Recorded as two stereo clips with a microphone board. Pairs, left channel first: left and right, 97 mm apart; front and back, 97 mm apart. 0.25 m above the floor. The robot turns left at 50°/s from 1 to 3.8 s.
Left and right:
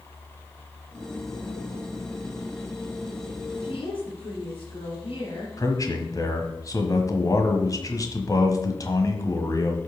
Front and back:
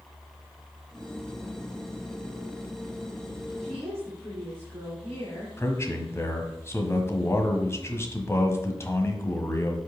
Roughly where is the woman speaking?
Left.